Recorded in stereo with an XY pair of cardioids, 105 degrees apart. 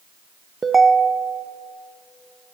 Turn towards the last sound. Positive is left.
turn(degrees=-25)